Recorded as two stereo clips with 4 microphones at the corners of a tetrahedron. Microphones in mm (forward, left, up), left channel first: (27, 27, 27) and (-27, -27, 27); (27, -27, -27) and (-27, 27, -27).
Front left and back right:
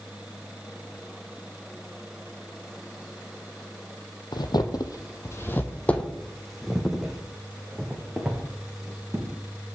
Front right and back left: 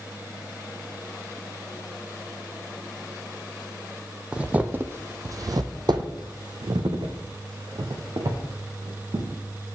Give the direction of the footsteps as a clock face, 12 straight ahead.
10 o'clock.